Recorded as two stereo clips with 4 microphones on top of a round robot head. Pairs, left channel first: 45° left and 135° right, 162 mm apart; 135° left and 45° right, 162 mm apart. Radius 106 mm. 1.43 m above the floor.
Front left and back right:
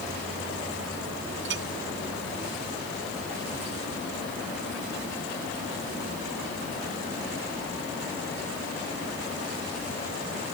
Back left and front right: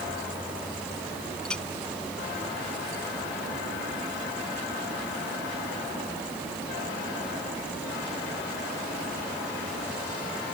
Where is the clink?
140° right.